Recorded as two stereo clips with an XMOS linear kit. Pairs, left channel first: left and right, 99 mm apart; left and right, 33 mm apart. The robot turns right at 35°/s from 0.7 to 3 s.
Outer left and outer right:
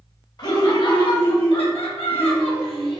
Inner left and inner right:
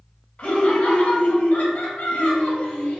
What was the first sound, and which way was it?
Laughter, 45° left.